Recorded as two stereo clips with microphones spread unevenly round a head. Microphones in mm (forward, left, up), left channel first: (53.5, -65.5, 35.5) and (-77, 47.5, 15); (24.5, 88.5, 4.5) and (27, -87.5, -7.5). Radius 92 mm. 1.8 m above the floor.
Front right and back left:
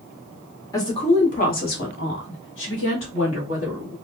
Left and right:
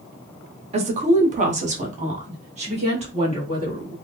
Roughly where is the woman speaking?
Right.